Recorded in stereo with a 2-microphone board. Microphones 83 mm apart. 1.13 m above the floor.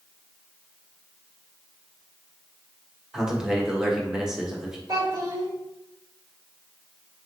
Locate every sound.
3.1 s a man speaking: 10° right (ahead or behind), 1.1 m
4.9 s a child speaking: 50° right (ahead or behind), 1.1 m